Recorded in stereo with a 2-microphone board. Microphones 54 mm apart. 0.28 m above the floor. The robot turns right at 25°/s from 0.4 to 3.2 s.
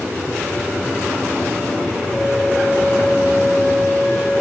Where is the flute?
Centre (ahead or behind), 1.7 m; by 4.4 s 20° left (ahead or behind), 1.7 m.